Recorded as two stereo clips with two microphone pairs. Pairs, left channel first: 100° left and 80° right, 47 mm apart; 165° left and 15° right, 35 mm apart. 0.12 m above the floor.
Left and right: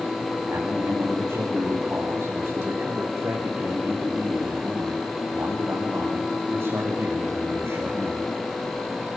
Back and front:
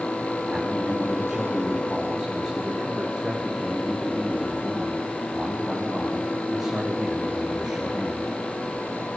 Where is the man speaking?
95° right, 7.5 m.